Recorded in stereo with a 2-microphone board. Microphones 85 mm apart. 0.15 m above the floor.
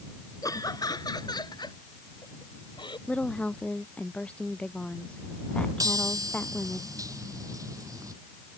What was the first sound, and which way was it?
Laughter, 45° left (ahead or behind).